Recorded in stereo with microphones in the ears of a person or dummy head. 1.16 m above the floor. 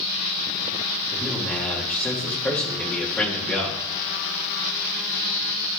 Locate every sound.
1.1 s a man speaking: 5° left (ahead or behind), 2 m